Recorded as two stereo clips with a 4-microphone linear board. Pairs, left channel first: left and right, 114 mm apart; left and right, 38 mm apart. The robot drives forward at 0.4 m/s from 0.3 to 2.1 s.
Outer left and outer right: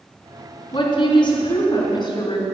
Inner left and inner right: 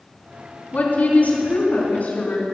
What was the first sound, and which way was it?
A woman speaking, 45° left (ahead or behind).